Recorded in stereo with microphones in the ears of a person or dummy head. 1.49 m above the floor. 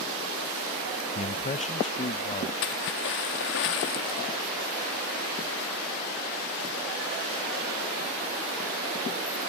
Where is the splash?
55° left (ahead or behind).